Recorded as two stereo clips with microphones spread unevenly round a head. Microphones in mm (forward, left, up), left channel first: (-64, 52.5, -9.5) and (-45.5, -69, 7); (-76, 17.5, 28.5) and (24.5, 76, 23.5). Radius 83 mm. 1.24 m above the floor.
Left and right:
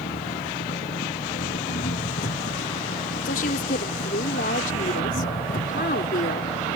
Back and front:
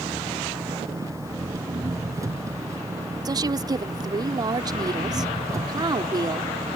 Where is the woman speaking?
85° left.